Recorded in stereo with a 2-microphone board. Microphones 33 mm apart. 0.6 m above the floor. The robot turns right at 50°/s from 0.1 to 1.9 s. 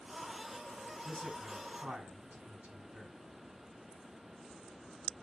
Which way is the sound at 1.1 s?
15° right (ahead or behind).